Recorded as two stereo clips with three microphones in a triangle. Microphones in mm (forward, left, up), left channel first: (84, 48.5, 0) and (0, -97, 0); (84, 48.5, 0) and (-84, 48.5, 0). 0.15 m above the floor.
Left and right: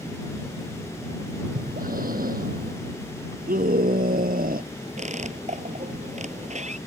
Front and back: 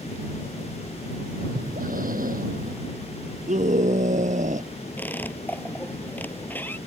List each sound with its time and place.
1.6 s breathing: 150° right
3.5 s a scream: 140° right
5.0 s a squeak: 80° right